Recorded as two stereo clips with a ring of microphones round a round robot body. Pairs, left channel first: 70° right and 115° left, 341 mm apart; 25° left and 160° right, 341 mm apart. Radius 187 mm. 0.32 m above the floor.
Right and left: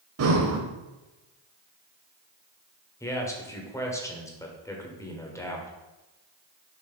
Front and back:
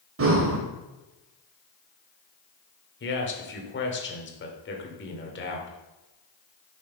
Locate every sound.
0.2 s breathing: 155° left, 1.2 m
3.0 s a man speaking: 5° left, 1.4 m